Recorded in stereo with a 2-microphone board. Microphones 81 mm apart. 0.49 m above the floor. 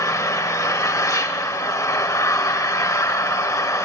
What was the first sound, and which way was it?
An engine running, 45° left (ahead or behind).